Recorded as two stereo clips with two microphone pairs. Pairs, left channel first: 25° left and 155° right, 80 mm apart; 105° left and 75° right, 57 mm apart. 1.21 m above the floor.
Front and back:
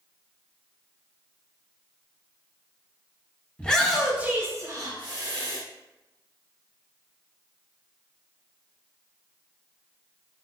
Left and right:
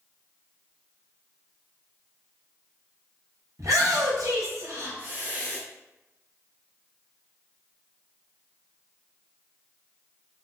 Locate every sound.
3.6 s a shout: 55° right, 1.1 m; by 5.6 s 140° right, 1.6 m